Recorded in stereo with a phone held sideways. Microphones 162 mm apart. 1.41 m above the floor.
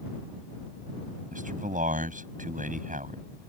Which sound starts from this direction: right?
A man speaking, at 1.3 s.